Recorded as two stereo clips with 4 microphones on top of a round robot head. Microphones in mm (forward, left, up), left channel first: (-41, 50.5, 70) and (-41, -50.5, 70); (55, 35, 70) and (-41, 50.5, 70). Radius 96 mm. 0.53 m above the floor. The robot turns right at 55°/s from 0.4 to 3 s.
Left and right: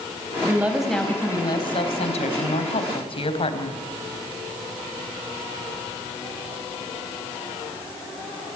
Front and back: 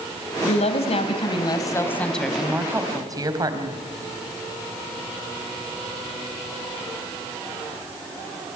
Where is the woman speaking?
20° right, 3.5 m; by 3.8 s 120° left, 3.5 m.